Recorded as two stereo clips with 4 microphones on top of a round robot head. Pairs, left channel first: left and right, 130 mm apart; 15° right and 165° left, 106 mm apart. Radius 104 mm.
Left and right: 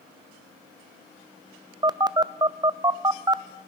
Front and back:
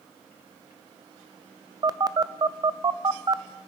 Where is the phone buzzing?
145° right, 0.5 m.